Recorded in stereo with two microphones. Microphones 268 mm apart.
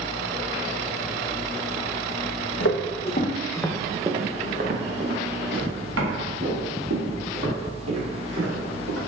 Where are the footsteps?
60° left (ahead or behind), 0.7 m; by 9.0 s 65° right (ahead or behind), 3 m.